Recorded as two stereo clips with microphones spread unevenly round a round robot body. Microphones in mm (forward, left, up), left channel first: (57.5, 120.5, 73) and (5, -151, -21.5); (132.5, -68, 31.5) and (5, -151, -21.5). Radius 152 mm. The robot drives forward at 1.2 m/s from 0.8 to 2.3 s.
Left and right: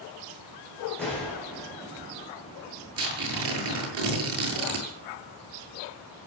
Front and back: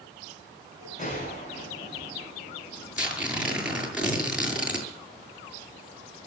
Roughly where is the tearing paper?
Ahead right.